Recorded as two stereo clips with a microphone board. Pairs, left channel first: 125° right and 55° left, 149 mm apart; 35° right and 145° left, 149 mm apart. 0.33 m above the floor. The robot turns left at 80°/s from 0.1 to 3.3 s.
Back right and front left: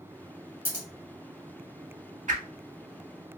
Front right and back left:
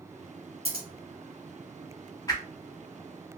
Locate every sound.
0.7 s scissors: 125° left, 1.0 m; by 0.9 s 110° left, 1.0 m
2.3 s a whoosh: 30° left, 0.5 m; by 3.4 s 50° right, 0.5 m